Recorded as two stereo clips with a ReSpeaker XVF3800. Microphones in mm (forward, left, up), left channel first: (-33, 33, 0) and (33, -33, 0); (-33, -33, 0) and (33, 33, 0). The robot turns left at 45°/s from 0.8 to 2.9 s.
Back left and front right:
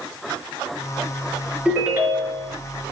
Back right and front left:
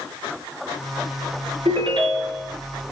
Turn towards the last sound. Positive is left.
turn(degrees=-25)